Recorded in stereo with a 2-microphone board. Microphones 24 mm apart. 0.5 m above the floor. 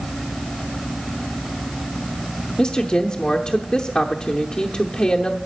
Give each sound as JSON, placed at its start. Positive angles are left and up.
{"t": 2.6, "sound": "a woman speaking", "side_deg": 40, "distance_m": 0.8}